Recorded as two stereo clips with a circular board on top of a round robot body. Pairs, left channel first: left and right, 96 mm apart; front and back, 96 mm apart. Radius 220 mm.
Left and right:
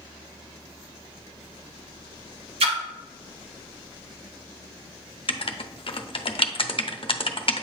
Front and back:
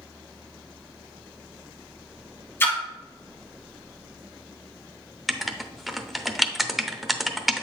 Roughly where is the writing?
Left.